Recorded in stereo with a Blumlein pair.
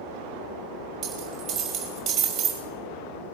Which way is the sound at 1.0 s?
30° right.